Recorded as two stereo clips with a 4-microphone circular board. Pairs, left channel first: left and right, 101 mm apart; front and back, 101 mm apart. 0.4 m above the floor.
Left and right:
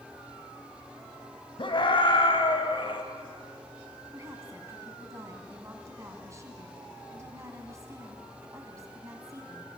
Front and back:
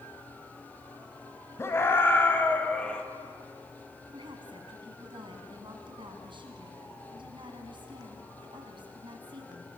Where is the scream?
60° left, 3.5 m; by 3.0 s 80° left, 2.5 m.